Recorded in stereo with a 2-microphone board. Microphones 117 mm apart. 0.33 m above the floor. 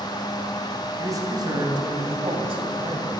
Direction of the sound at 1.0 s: 30° right (ahead or behind).